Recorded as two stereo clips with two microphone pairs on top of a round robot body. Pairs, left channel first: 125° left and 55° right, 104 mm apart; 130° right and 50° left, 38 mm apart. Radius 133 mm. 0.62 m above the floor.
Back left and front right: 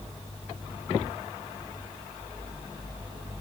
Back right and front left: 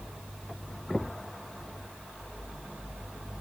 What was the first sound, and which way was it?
Only background noise.